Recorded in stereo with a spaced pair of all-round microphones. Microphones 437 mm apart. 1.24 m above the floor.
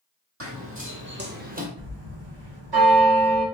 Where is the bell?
60° right (ahead or behind), 1.5 m.